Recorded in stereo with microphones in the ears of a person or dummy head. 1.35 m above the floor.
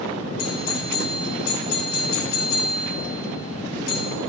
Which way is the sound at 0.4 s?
75° left (ahead or behind).